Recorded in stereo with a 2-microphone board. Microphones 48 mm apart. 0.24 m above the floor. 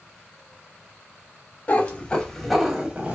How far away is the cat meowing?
About 0.9 m.